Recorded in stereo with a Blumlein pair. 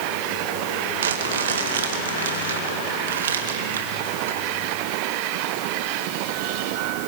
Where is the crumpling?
60° right, 2.5 m.